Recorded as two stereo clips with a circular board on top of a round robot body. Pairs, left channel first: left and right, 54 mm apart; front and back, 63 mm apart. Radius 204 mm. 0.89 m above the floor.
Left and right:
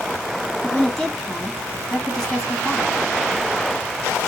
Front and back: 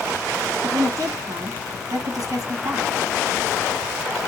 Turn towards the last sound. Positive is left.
turn(degrees=170)